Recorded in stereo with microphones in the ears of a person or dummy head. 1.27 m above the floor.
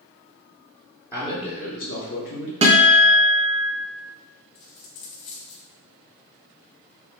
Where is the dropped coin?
55° left (ahead or behind), 1.4 m.